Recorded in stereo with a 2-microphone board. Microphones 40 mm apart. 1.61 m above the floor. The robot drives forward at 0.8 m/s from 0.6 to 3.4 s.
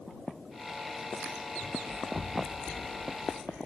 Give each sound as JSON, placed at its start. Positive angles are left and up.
{"t": 1.6, "sound": "running footsteps", "side_deg": 30, "distance_m": 2.0}